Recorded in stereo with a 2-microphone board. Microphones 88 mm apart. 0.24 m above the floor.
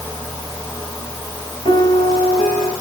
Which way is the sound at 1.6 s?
65° left (ahead or behind).